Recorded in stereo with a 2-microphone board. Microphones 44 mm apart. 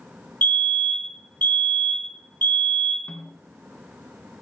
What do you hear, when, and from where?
0.4 s a fire alarm: 35° left (ahead or behind), 4 m
3.1 s a snare drum: 30° left (ahead or behind), 2 m